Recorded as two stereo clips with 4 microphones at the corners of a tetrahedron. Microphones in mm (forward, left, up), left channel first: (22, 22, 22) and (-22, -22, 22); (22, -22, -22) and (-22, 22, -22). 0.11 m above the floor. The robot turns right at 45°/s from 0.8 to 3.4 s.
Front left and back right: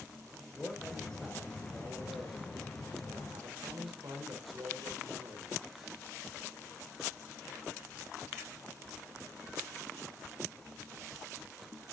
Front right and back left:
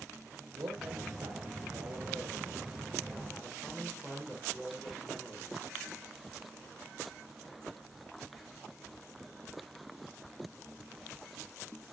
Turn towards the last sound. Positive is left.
turn(degrees=-130)